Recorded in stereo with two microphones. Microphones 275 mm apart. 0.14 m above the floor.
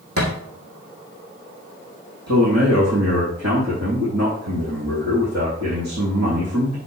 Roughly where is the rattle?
I don't hear a rattle.